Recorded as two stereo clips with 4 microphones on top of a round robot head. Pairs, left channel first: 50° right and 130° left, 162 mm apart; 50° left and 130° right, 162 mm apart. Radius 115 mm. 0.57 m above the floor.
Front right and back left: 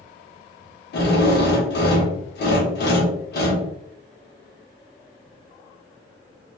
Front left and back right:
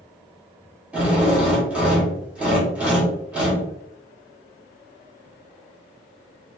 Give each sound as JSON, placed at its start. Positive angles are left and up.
{"t": 0.9, "sound": "a drill", "azimuth_deg": -45, "distance_m": 1.0}